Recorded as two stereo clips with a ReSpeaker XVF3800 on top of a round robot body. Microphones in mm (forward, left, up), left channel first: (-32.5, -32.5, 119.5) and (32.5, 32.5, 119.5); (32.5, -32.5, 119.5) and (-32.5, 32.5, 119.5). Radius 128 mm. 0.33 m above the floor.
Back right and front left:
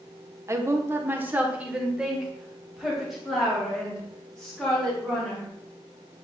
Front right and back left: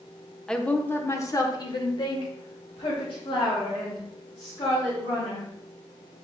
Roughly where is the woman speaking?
Ahead left.